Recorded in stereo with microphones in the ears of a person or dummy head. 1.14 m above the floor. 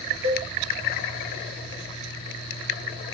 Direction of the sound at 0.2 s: 50° right (ahead or behind).